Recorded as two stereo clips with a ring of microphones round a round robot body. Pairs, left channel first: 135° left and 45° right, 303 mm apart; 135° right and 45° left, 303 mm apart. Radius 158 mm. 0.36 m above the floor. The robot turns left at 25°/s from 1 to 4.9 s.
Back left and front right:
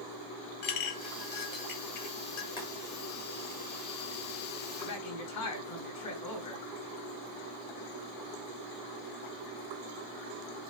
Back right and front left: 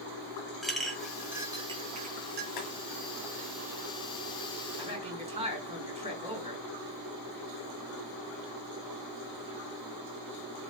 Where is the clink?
135° left, 1.6 m; by 2.5 s 100° left, 1.6 m.